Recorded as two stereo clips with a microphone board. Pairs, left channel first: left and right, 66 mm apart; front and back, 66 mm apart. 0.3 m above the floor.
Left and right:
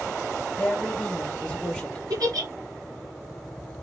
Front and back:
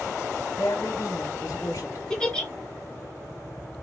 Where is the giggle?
80° right, 3.5 m.